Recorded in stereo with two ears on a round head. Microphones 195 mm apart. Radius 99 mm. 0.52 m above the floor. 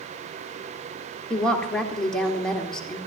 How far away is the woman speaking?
About 1.5 m.